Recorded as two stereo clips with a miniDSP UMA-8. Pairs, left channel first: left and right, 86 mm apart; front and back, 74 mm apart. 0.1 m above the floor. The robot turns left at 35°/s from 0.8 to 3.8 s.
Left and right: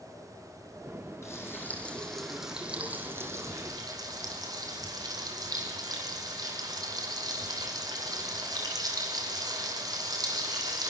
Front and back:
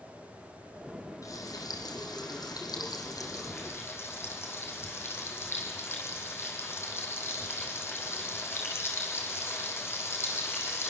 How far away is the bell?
I don't hear a bell.